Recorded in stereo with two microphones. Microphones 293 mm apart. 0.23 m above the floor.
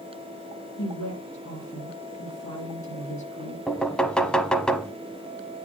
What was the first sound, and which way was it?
A woman speaking, 70° left (ahead or behind).